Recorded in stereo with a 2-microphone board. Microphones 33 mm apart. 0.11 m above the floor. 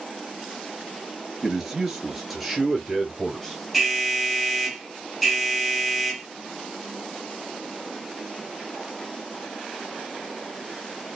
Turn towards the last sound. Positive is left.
turn(degrees=0)  # may be behind; listen again after turning